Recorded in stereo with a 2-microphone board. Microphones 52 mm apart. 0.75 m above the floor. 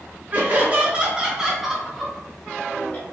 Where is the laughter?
40° right (ahead or behind), 1.2 m; by 3.0 s 30° left (ahead or behind), 1.2 m.